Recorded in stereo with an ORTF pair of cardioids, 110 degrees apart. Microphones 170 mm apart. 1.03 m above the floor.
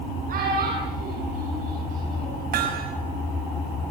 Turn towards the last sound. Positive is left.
turn(degrees=-65)